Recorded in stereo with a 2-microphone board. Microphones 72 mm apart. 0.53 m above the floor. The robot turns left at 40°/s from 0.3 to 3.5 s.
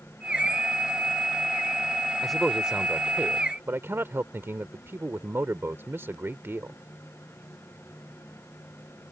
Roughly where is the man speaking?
Ahead.